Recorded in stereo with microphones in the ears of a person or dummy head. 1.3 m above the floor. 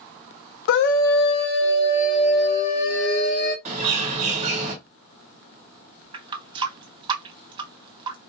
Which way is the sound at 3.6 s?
40° right (ahead or behind).